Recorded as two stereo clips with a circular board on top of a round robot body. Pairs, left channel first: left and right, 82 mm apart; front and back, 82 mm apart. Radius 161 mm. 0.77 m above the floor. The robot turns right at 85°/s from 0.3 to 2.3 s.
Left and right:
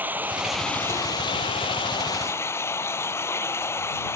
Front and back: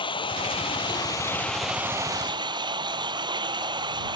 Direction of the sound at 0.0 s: 20° right.